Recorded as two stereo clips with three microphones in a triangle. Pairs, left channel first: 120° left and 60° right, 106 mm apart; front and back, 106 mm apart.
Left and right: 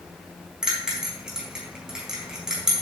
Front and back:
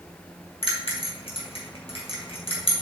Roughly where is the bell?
Ahead left.